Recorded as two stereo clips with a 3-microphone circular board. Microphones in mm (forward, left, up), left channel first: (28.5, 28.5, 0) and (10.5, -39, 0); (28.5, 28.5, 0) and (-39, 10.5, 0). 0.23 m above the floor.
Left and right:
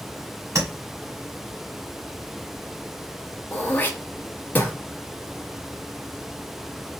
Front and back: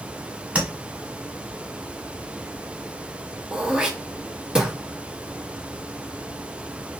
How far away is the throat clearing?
About 0.6 m.